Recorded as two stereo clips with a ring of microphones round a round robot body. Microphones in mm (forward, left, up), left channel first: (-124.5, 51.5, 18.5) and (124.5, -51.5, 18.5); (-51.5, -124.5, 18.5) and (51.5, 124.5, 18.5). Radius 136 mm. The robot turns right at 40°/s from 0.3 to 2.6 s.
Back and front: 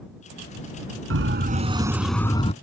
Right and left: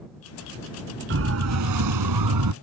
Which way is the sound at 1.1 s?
20° left.